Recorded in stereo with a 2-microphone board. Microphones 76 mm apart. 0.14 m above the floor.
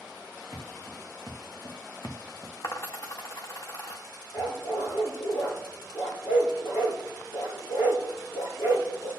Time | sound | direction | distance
0.5 | footsteps | 60° left (ahead or behind) | 3 m
2.6 | a dropped coin | 45° left (ahead or behind) | 1.3 m
4.3 | a dog barking | 75° left (ahead or behind) | 3 m